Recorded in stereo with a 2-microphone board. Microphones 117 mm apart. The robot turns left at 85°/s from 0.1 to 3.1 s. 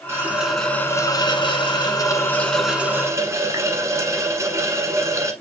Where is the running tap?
145° right, 1.1 m; by 5.3 s 40° right, 1.1 m.